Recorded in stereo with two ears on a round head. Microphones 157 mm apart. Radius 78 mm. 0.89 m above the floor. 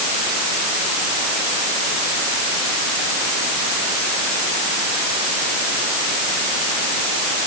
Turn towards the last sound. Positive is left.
No sound to turn to.